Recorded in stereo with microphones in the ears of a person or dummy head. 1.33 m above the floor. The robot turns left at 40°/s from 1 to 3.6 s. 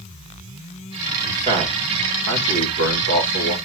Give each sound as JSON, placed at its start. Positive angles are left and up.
{"t": 1.2, "sound": "a man speaking", "side_deg": -15, "distance_m": 2.0}